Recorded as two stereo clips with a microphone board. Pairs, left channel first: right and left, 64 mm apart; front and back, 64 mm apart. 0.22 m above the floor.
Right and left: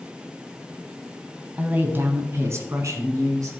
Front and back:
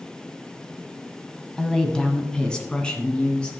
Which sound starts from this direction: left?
A woman speaking, at 1.6 s.